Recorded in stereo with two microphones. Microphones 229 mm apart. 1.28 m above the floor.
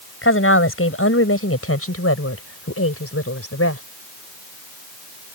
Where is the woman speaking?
65° left (ahead or behind); by 3.8 s 90° left.